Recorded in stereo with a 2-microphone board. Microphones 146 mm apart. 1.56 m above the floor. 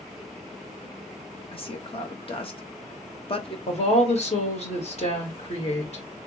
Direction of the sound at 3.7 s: 50° left (ahead or behind).